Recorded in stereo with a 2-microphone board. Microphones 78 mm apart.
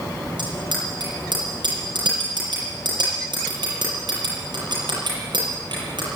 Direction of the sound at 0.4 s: 80° right.